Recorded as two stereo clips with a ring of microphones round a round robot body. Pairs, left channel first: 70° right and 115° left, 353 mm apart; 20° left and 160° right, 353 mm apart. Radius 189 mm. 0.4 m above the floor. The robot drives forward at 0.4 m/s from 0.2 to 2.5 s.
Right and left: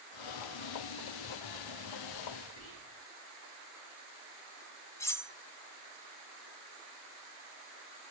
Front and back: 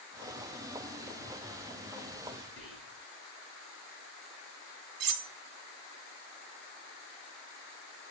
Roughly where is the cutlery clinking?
Behind right.